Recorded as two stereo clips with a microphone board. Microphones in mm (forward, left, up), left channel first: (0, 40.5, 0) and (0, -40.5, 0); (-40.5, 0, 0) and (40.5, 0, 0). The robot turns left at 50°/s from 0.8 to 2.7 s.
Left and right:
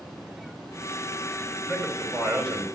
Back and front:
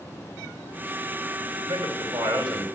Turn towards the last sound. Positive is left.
turn(degrees=-30)